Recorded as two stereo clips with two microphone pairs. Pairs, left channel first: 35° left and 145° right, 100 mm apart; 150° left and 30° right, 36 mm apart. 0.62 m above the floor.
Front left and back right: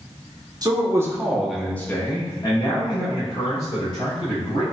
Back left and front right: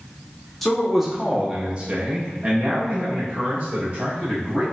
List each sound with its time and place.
0.6 s a man speaking: 125° right, 0.8 m; by 4.6 s 25° left, 1.8 m